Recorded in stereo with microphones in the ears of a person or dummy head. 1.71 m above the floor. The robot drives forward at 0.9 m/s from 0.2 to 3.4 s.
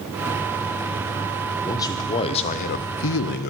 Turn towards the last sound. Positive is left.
turn(degrees=55)  # may be behind; listen again after turning